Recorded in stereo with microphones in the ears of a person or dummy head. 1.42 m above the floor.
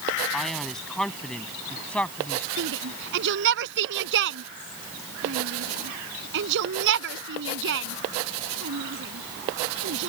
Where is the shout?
65° right (ahead or behind).